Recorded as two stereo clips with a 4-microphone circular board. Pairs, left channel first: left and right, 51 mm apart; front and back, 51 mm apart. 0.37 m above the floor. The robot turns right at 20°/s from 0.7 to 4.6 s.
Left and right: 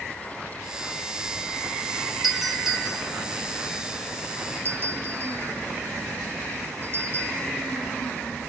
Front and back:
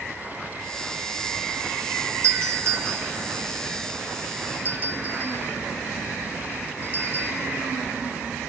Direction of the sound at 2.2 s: 175° right.